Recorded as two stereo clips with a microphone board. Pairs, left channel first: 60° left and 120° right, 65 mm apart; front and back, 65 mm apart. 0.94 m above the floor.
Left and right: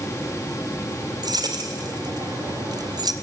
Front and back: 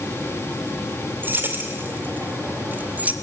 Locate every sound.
1.2 s keys jangling: 120° right, 2.5 m; by 3.1 s 110° right, 0.9 m